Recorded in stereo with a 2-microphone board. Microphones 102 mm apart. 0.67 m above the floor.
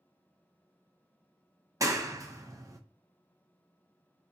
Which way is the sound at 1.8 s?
35° right (ahead or behind).